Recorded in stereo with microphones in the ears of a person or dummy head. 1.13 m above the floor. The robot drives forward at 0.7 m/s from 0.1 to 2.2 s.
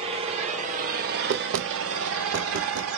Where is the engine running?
35° right (ahead or behind), 1.6 m; by 3.0 s 65° right (ahead or behind), 1.0 m.